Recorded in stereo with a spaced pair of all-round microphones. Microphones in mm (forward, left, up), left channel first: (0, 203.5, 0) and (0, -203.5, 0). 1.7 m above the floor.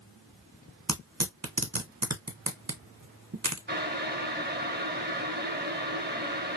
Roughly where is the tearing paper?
Right.